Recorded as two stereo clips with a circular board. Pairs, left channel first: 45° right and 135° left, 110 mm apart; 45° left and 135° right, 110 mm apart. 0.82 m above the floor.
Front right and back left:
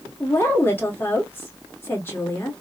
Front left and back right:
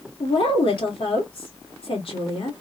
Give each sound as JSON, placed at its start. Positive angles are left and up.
{"t": 0.2, "sound": "a woman speaking", "azimuth_deg": 20, "distance_m": 1.7}